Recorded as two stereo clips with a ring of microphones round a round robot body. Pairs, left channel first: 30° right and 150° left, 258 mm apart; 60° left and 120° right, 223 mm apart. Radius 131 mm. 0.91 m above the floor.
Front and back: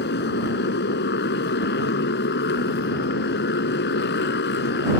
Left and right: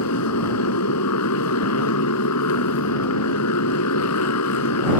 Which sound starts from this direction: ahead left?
A motorcycle, at 0.0 s.